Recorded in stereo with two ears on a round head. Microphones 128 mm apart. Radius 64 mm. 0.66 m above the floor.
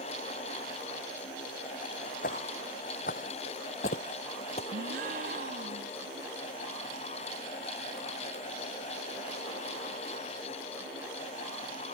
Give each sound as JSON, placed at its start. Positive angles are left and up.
{"t": 2.2, "sound": "footsteps", "side_deg": 65}
{"t": 4.7, "sound": "a gasp", "side_deg": -65}